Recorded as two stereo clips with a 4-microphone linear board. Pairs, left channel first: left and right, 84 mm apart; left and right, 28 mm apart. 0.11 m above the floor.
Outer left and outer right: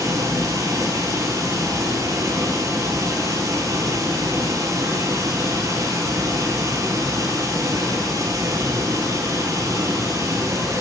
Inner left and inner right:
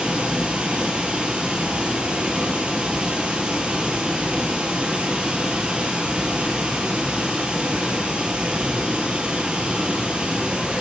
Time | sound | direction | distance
0.0 | running water | 45° right (ahead or behind) | 0.9 m